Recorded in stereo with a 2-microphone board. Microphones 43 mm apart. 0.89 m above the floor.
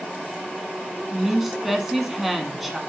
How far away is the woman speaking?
About 1.6 m.